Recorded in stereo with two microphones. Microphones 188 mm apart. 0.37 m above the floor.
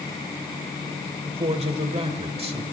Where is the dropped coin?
I don't hear a dropped coin.